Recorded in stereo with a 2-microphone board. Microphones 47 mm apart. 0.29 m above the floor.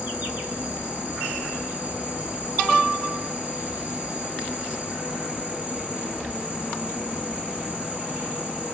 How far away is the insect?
About 1.1 m.